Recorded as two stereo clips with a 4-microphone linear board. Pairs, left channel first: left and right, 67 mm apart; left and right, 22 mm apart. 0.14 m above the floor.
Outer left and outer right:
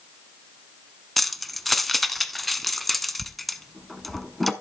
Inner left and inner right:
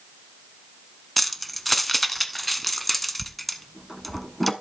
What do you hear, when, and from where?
1.2 s keys jangling: 5° left (ahead or behind), 0.7 m